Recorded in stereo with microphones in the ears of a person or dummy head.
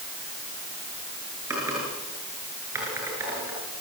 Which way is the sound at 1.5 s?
10° right (ahead or behind).